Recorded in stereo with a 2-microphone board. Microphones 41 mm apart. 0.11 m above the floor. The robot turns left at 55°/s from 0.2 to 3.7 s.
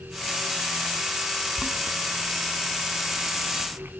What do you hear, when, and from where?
1.6 s boiling: 5° right (ahead or behind), 4 m; by 3.9 s 60° right (ahead or behind), 4 m